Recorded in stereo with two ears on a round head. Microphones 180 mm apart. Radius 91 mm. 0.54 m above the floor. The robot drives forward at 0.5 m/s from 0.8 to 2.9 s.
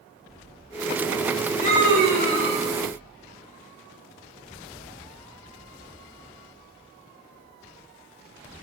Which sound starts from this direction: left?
A scream, at 1.6 s.